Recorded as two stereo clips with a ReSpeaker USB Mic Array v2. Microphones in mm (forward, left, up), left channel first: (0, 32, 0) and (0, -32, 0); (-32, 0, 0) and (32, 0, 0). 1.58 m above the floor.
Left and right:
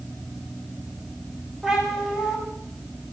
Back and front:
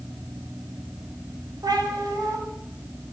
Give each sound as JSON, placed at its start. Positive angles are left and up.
{"t": 1.6, "sound": "a cat meowing", "azimuth_deg": -10, "distance_m": 4.0}